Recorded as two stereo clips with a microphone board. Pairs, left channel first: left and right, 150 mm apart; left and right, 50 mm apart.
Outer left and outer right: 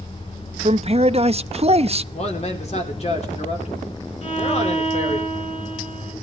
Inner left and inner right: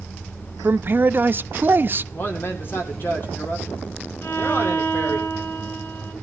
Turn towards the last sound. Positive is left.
turn(degrees=50)  # may be behind; listen again after turning